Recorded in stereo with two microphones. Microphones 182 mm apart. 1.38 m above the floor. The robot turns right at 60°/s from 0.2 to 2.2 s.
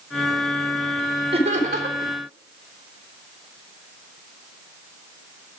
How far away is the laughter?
About 3.5 m.